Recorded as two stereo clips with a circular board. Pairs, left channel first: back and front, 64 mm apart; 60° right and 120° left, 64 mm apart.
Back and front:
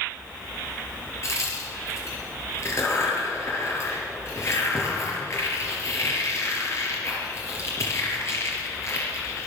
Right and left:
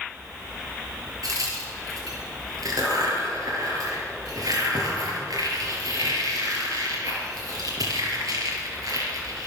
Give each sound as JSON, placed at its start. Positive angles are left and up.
{"t": 1.2, "sound": "a crack", "azimuth_deg": 135, "distance_m": 4.5}